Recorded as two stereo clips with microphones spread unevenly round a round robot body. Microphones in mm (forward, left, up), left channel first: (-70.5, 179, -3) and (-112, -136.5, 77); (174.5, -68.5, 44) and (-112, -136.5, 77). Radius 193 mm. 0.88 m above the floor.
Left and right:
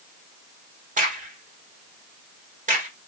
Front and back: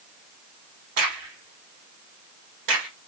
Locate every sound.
1.0 s a crack: 165° right, 1.6 m